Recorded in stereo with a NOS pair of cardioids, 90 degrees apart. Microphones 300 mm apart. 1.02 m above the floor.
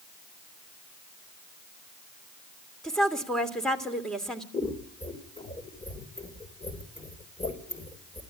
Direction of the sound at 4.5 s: 20° left.